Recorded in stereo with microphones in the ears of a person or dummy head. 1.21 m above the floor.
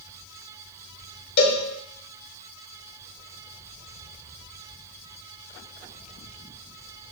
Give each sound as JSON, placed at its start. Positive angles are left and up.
{"t": 1.4, "sound": "a cowbell", "side_deg": 60, "distance_m": 2.0}